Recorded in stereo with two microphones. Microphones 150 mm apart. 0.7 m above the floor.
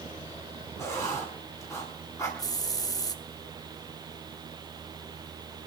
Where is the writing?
20° left (ahead or behind), 7.5 m.